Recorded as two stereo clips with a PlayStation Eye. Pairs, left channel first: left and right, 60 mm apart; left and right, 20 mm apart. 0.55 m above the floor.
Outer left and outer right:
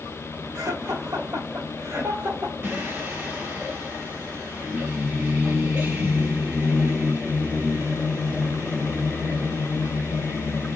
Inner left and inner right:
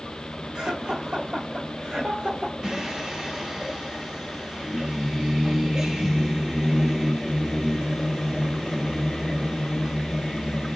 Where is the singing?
45° right (ahead or behind), 1.6 m.